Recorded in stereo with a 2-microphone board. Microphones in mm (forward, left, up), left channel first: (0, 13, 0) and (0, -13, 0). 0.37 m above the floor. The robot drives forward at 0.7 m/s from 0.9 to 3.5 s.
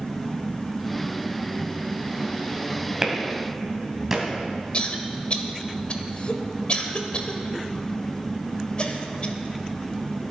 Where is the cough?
45° left (ahead or behind), 1.4 m.